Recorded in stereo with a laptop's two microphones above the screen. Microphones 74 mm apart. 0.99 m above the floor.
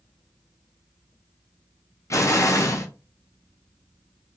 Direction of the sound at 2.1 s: 40° left (ahead or behind).